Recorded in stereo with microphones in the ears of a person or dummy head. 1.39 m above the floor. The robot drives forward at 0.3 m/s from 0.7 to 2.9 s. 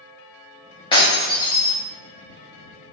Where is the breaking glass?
25° left (ahead or behind), 0.9 m; by 1.7 s 20° left (ahead or behind), 1.1 m.